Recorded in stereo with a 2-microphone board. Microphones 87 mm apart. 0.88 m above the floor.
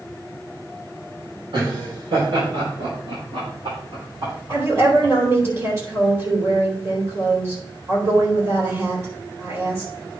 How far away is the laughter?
About 3.5 m.